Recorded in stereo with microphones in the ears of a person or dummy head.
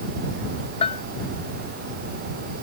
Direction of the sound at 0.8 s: 30° left (ahead or behind).